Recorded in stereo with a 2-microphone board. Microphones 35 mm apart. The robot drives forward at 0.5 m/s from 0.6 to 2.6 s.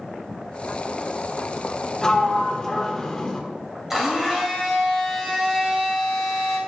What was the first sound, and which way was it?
A sliding door, 15° left (ahead or behind).